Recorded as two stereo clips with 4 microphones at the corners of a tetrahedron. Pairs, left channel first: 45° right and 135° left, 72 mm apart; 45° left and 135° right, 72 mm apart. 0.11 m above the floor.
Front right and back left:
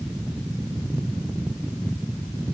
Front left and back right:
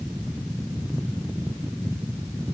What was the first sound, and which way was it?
Only background noise.